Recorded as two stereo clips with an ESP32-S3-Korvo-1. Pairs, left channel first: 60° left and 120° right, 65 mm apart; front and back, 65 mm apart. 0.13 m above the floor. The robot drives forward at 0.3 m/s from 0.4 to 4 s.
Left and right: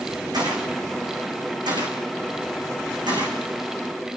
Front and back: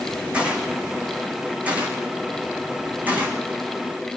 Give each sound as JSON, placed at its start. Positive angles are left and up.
{"t": 0.3, "sound": "a gunshot", "azimuth_deg": -105, "distance_m": 5.0}